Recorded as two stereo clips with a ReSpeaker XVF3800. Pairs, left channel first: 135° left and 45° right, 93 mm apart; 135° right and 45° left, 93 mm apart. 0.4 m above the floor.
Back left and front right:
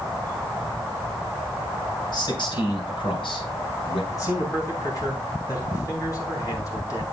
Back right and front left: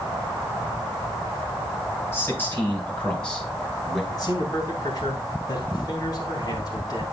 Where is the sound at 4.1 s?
Straight behind, 3.5 m.